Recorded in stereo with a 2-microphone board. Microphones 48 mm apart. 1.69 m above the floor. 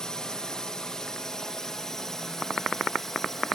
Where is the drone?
15° left (ahead or behind); by 3.5 s 10° left (ahead or behind).